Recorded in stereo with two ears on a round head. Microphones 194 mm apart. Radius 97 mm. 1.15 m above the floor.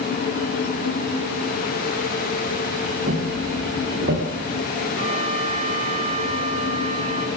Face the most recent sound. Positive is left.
turn(degrees=-30)  # may be behind; listen again after turning